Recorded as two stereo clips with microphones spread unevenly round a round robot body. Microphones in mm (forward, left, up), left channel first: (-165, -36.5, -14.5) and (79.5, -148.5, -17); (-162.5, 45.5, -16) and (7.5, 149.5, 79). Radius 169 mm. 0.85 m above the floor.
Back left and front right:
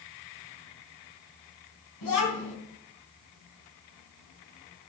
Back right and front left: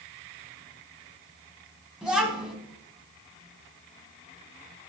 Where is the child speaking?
120° left, 4 m.